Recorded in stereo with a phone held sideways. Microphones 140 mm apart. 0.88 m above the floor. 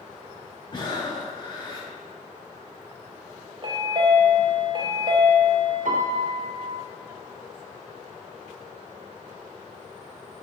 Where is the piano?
70° right (ahead or behind), 0.5 m.